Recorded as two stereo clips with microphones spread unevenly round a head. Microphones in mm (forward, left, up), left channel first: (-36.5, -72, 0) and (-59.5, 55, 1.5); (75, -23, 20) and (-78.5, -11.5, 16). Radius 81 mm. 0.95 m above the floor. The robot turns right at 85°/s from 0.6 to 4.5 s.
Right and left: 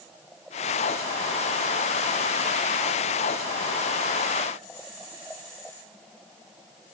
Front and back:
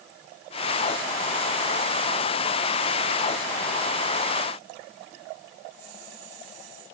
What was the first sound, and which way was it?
Only background noise.